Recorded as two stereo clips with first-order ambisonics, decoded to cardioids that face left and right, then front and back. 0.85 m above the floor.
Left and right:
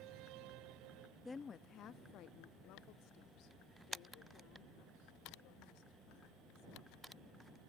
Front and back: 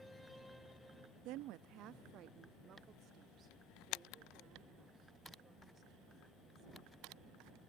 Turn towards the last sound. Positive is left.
turn(degrees=110)